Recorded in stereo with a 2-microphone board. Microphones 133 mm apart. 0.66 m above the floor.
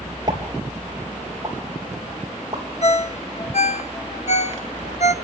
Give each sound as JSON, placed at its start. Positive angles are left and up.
{"t": 0.3, "sound": "a pop", "side_deg": -30, "distance_m": 3.5}
{"t": 2.8, "sound": "a ringtone", "side_deg": 60, "distance_m": 0.9}